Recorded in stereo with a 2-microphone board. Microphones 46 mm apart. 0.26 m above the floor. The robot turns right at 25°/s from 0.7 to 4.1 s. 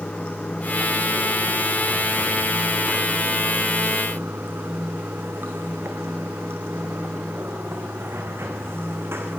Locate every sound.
0.0 s running water: 160° left, 3 m; by 9.4 s 115° right, 3 m